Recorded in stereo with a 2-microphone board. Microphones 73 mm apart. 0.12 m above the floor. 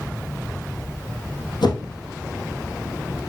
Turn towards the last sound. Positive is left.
turn(degrees=75)  # may be behind; listen again after turning